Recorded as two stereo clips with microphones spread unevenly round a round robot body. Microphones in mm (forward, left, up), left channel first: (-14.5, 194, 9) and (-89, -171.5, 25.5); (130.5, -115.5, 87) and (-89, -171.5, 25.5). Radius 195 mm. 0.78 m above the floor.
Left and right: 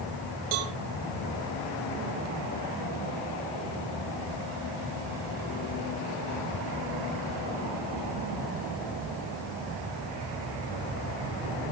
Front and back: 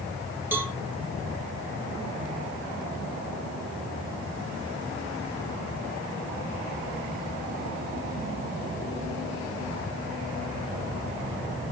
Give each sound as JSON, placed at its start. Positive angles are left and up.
{"t": 0.5, "sound": "a cowbell", "azimuth_deg": -80, "distance_m": 2.5}